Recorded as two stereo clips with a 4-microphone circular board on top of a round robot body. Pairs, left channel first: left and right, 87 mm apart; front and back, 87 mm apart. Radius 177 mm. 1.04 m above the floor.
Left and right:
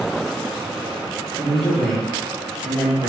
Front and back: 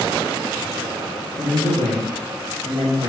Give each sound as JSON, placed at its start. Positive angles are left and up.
{"t": 1.4, "sound": "a man speaking", "azimuth_deg": 165, "distance_m": 1.6}